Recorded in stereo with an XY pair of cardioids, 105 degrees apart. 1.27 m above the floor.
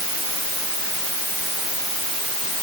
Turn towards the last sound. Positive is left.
No sound to turn to.